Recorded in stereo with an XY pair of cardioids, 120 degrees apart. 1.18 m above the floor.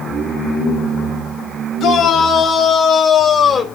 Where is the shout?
60° left, 6.5 m; by 3.6 s 35° left, 5 m.